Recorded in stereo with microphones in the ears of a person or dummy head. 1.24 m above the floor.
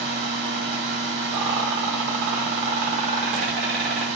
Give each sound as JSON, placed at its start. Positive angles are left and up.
{"t": 0.0, "sound": "a fan", "side_deg": -35, "distance_m": 1.2}
{"t": 1.3, "sound": "a rattle", "side_deg": -55, "distance_m": 0.8}